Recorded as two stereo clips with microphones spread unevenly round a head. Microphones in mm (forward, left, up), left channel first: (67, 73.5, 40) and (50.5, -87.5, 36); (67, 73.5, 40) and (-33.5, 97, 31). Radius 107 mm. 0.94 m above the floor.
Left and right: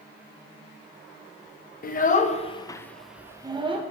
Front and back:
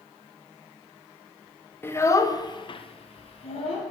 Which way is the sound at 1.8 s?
55° left.